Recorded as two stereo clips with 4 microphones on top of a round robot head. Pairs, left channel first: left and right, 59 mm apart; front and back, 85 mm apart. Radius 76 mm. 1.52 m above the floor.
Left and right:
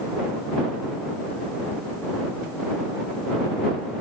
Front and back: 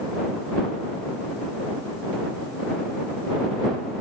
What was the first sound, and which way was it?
Only background noise.